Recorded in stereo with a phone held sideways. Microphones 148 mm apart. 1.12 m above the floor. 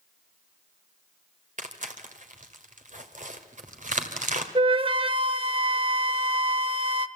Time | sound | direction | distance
1.6 | tearing paper | 55° right (ahead or behind) | 2 m
4.5 | a flute | 35° right (ahead or behind) | 0.8 m